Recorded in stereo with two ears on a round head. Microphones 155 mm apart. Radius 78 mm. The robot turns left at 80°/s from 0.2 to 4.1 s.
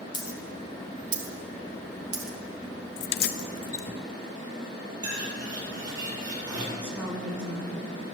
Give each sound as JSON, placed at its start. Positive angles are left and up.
{"t": 0.1, "sound": "a dropped coin", "side_deg": 25, "distance_m": 2.5}
{"t": 3.0, "sound": "keys jangling", "side_deg": 70, "distance_m": 0.6}
{"t": 5.0, "sound": "a bird", "side_deg": -20, "distance_m": 8.0}
{"t": 6.8, "sound": "a woman speaking", "side_deg": -5, "distance_m": 4.5}